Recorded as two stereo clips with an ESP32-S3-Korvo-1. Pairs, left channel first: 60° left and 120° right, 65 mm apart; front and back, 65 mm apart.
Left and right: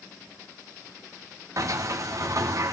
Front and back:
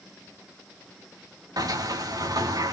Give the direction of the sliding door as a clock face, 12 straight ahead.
5 o'clock.